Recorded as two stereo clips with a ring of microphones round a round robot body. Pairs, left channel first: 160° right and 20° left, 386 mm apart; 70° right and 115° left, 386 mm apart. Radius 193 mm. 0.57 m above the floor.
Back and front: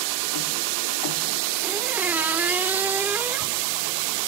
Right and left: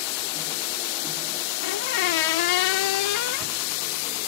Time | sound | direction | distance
1.6 | a squeak | 65° right | ?